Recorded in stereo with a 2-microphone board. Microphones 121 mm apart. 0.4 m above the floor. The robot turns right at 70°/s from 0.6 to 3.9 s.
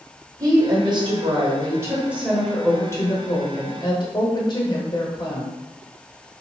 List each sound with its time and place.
0.4 s a woman speaking: 125° right, 1.0 m; by 5.5 s 105° left, 1.0 m